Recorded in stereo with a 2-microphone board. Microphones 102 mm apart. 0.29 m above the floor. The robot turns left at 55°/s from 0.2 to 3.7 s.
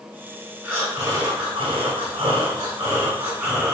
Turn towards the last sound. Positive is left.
turn(degrees=175)